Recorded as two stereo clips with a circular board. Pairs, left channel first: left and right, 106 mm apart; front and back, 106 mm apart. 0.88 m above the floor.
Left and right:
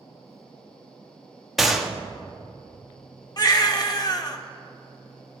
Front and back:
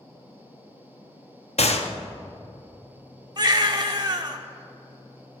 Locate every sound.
1.6 s a gunshot: straight ahead, 0.7 m
3.4 s a baby crying: 135° left, 0.7 m